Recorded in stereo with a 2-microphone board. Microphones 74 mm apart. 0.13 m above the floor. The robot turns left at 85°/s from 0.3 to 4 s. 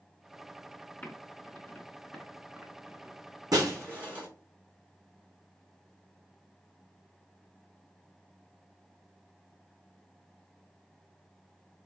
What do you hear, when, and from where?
1.0 s typing on a keyboard: 25° left (ahead or behind), 1.1 m; by 3.7 s 20° right (ahead or behind), 1.1 m
3.5 s breaking glass: 60° right (ahead or behind), 2 m; by 4.3 s 20° right (ahead or behind), 2 m